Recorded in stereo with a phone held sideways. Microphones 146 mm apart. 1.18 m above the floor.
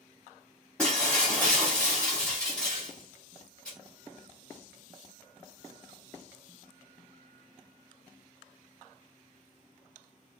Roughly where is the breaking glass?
Centre.